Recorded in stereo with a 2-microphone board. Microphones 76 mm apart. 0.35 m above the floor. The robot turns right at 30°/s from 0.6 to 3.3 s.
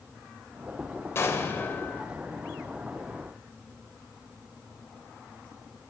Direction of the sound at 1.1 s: 35° left (ahead or behind).